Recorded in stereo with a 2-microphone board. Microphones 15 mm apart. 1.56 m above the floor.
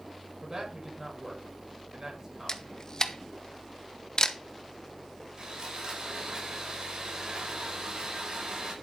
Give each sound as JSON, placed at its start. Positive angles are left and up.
{"t": 0.4, "sound": "a man speaking", "side_deg": -35, "distance_m": 7.0}
{"t": 2.5, "sound": "a camera shutter", "side_deg": 40, "distance_m": 1.0}
{"t": 5.4, "sound": "sawing", "side_deg": -55, "distance_m": 5.0}